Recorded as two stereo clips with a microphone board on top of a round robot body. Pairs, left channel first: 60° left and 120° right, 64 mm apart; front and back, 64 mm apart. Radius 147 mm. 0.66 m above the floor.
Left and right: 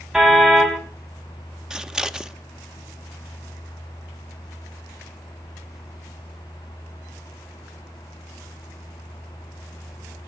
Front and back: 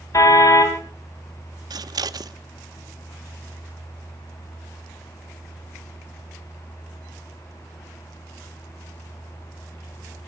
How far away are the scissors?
About 0.9 m.